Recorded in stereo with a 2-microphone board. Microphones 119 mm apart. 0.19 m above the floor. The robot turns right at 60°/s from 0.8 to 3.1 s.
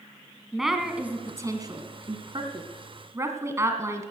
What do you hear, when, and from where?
0.5 s a woman speaking: 5° right (ahead or behind), 1.4 m; by 4.1 s 25° right (ahead or behind), 1.4 m